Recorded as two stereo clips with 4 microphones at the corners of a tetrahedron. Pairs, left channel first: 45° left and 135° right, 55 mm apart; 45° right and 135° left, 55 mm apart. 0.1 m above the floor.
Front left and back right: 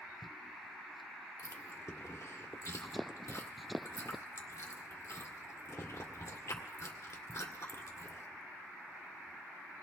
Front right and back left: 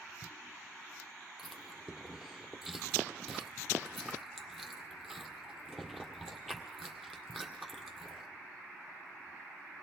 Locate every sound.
1.4 s chewing: 45° left, 1.8 m